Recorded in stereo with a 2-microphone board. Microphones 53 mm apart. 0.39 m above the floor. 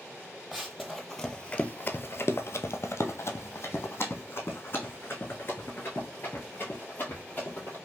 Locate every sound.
0.5 s running footsteps: 5° right (ahead or behind), 0.9 m; by 7.8 s 35° left (ahead or behind), 3 m